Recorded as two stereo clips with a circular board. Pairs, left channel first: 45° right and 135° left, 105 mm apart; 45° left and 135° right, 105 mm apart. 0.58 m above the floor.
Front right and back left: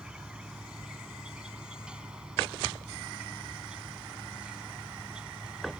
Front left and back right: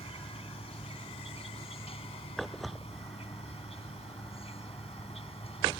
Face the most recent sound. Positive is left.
turn(degrees=55)